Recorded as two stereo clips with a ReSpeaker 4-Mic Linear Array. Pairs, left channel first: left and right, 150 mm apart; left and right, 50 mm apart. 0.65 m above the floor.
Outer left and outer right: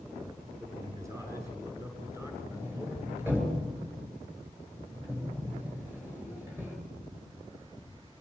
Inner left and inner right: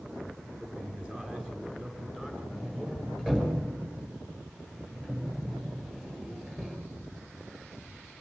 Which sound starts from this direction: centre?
A sliding door, at 2.5 s.